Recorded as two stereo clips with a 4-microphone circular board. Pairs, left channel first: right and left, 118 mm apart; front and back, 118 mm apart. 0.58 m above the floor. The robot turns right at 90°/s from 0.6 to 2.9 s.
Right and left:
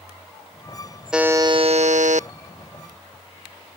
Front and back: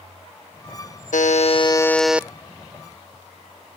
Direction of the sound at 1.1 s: 5° left.